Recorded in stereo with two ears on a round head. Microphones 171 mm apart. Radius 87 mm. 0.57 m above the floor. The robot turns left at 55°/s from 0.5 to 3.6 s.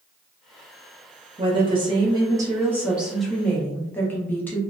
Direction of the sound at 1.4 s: 25° right (ahead or behind).